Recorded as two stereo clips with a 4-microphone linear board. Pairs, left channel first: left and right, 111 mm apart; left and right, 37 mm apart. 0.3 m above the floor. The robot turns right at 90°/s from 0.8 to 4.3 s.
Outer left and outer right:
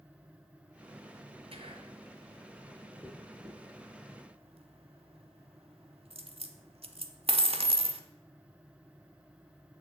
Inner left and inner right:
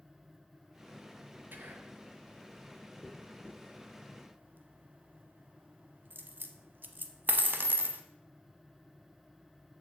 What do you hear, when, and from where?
1.5 s whispering: 95° right, 1.8 m; by 2.0 s 55° right, 1.8 m
3.0 s a dropped coin: 5° left (ahead or behind), 0.9 m; by 8.0 s 65° right (ahead or behind), 0.9 m